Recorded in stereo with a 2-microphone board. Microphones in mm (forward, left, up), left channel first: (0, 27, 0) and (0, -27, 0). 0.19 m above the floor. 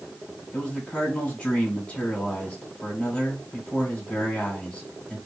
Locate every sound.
0.5 s a man speaking: 15° left (ahead or behind), 2 m